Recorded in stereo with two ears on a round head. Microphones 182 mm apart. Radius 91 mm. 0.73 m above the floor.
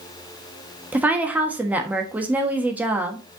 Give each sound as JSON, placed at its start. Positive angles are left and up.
{"t": 0.9, "sound": "a woman speaking", "side_deg": -10, "distance_m": 1.3}